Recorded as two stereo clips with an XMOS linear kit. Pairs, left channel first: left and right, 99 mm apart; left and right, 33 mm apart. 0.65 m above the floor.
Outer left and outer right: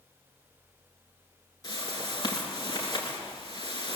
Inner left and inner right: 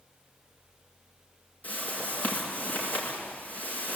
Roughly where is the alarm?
I don't hear an alarm.